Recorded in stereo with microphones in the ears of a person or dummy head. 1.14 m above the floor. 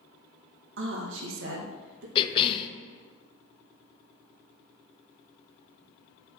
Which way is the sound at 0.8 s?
55° right (ahead or behind).